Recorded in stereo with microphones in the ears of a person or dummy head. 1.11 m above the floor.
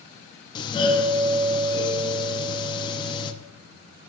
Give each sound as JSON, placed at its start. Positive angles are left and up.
{"t": 0.6, "sound": "a doorbell", "side_deg": 20, "distance_m": 0.5}